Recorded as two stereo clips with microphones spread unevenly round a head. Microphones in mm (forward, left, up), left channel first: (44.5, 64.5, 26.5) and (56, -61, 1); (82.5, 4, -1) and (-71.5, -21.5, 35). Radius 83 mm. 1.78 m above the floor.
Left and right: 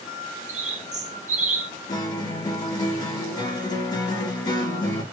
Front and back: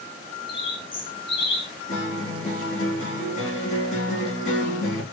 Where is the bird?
50° right, 0.8 m.